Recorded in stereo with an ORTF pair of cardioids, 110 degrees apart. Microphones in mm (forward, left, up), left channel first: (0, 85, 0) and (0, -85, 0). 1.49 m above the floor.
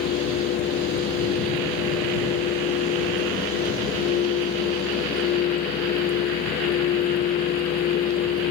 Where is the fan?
65° left.